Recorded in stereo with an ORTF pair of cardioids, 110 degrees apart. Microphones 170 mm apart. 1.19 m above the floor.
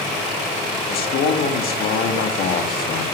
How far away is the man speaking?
About 1.9 m.